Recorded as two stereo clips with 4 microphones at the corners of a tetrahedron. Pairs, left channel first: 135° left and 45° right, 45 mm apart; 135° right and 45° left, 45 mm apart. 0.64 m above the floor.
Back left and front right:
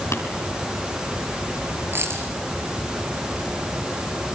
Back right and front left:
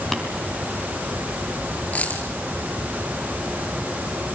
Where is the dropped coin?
80° right, 6 m.